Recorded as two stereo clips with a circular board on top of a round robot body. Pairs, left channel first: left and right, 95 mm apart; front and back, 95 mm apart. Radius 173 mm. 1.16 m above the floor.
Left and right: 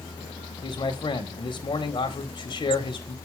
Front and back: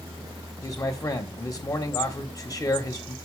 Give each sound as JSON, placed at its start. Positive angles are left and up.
{"t": 0.6, "sound": "a man speaking", "azimuth_deg": 55, "distance_m": 1.8}